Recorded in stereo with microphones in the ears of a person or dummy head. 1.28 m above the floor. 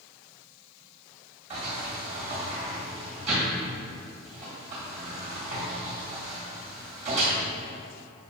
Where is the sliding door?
35° right (ahead or behind), 1.7 m.